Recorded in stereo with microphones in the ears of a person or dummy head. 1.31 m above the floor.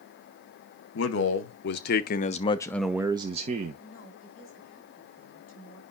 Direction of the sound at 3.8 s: 50° left (ahead or behind).